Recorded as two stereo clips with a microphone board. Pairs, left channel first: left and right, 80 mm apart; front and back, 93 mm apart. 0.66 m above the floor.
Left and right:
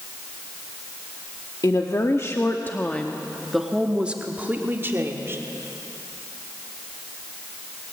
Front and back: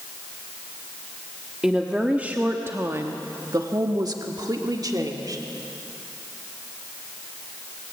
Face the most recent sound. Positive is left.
turn(degrees=-140)